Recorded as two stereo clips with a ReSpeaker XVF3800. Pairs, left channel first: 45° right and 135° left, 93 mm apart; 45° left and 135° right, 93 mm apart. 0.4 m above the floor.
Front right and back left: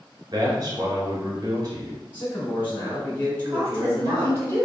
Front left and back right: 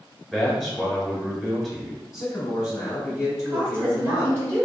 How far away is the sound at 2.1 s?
About 1.7 m.